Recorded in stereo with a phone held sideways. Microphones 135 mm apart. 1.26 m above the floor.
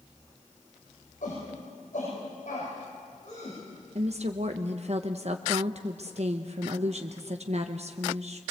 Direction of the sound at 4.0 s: 55° right (ahead or behind).